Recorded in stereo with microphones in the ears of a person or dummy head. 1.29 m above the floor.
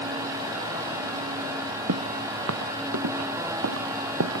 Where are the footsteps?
80° right.